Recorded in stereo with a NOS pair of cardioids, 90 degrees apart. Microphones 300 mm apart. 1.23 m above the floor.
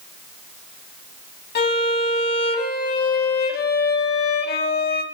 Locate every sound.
1.6 s a violin: 35° left, 1.6 m